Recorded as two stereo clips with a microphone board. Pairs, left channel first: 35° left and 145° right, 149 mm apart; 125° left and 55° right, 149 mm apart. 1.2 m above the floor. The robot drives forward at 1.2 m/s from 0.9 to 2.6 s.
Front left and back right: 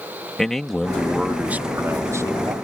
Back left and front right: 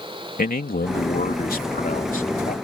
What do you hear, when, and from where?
0.4 s a man speaking: 120° left; by 2.5 s 150° left